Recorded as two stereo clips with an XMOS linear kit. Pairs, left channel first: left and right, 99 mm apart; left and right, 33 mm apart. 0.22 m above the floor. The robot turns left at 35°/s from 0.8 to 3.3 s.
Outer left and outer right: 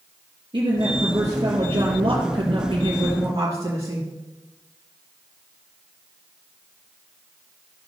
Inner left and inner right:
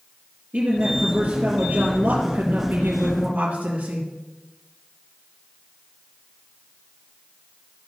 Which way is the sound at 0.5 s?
60° right.